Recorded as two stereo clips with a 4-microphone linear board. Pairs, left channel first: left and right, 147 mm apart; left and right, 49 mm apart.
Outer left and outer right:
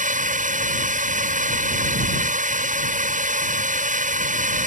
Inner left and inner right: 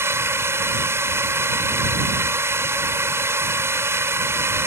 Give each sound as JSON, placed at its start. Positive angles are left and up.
{"t": 0.0, "sound": "a drone", "side_deg": -60}